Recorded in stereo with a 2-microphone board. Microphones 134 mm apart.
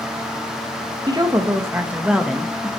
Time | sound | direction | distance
1.1 | a woman speaking | 30° right (ahead or behind) | 2.5 m